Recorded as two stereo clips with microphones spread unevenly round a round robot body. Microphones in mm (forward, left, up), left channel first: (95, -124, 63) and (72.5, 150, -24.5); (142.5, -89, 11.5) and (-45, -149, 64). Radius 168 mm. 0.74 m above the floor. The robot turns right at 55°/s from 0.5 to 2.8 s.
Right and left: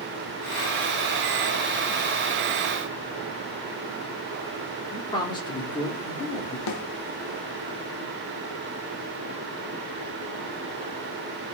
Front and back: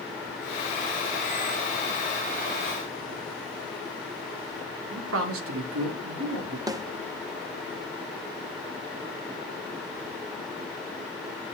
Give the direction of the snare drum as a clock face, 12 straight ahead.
3 o'clock.